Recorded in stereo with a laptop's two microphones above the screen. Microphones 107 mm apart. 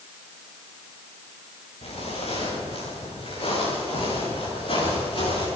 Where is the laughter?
I don't hear laughter.